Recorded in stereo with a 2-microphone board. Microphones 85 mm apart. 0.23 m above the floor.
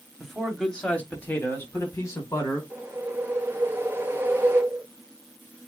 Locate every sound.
0.2 s a man speaking: centre (ahead or behind), 1.3 m; by 2.6 s 45° left (ahead or behind), 1.8 m
2.7 s a whoosh: 25° right (ahead or behind), 0.8 m